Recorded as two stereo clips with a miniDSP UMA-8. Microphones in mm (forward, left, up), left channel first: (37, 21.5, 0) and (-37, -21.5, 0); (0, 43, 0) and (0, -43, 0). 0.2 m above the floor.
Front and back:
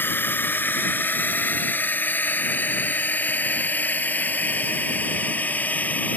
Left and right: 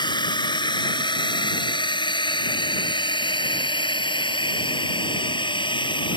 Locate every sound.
0.0 s a drone: 95° left; by 6.2 s 100° left